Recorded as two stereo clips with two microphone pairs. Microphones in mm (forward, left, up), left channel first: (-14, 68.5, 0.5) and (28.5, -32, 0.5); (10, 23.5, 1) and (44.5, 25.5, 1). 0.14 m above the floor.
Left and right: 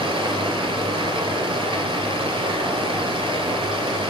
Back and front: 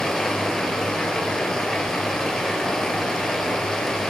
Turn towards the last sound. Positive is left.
turn(degrees=-95)